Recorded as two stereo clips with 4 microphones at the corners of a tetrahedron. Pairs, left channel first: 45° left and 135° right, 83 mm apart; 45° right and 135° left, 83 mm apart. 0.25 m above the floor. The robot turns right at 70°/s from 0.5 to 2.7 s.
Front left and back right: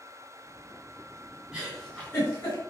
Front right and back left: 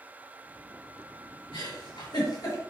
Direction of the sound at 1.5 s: 60° right.